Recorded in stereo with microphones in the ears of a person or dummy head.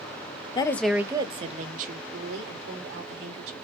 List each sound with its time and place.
0.6 s a woman speaking: 20° left (ahead or behind), 0.5 m; by 3.5 s 65° right (ahead or behind), 2 m